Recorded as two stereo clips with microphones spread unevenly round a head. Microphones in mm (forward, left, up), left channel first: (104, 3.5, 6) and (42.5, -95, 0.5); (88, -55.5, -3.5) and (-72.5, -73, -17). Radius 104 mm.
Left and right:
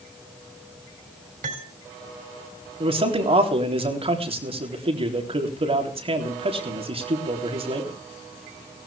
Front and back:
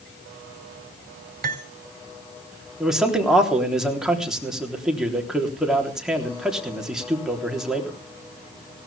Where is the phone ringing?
I don't hear a phone ringing.